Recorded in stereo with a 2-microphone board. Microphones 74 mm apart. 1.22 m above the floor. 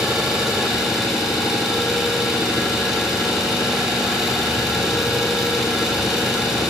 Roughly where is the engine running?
Centre.